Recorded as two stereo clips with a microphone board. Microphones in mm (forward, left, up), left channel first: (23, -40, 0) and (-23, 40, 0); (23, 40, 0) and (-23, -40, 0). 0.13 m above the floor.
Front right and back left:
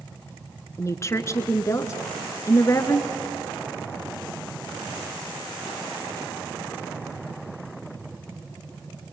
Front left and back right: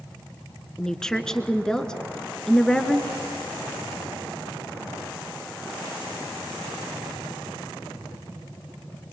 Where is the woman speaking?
20° right, 1.5 m.